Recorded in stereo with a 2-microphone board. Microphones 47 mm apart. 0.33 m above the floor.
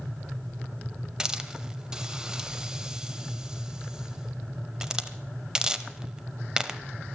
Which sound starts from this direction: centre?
A hiss, at 1.2 s.